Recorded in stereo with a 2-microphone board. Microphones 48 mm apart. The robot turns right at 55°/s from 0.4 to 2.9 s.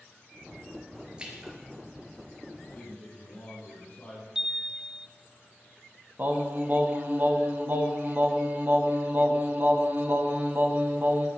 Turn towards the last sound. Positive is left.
turn(degrees=-45)  # may be behind; listen again after turning